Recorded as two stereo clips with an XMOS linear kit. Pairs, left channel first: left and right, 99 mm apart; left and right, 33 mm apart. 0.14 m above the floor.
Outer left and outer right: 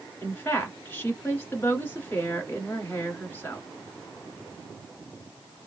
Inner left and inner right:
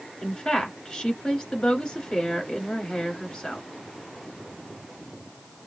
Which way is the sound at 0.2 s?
20° left (ahead or behind).